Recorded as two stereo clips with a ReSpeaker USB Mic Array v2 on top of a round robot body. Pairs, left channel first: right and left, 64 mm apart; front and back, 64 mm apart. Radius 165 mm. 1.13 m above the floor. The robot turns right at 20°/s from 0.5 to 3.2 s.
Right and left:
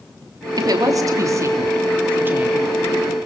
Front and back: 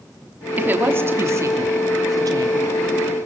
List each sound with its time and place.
0.6 s a woman speaking: 115° left, 4 m; by 2.6 s 155° left, 4 m